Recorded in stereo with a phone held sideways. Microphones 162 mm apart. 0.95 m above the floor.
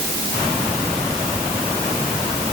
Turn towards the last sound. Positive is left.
No sound to turn to.